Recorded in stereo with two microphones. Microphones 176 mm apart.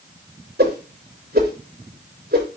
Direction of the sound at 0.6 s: 70° right (ahead or behind).